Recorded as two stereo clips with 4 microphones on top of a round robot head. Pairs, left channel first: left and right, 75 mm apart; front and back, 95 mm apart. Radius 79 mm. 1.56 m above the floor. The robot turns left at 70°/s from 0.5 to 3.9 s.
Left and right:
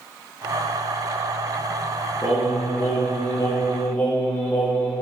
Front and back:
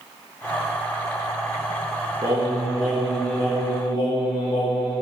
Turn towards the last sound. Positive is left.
turn(degrees=25)